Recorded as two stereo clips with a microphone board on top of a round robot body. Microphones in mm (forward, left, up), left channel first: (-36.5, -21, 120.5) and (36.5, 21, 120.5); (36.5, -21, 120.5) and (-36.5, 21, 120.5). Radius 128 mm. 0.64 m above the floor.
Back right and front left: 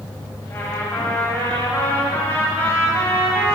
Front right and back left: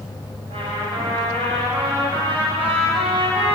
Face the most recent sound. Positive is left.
turn(degrees=140)